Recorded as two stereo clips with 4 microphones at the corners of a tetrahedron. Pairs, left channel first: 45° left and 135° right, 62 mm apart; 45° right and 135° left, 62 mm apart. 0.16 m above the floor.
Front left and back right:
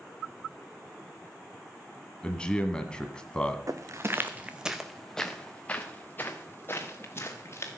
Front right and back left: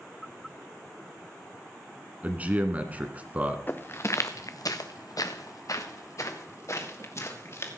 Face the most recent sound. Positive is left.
turn(degrees=-5)